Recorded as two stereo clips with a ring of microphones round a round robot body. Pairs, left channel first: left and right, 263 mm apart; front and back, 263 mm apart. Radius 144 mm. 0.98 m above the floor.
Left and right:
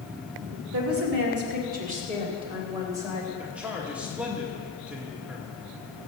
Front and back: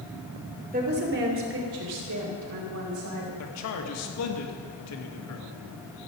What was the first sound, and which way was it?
A woman speaking, 120° right.